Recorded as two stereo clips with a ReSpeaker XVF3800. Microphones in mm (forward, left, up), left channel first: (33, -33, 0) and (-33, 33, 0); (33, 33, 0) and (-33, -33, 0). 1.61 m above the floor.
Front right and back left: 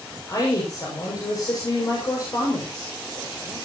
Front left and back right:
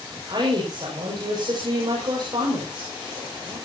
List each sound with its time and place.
0.3 s a woman speaking: 95° right, 6.5 m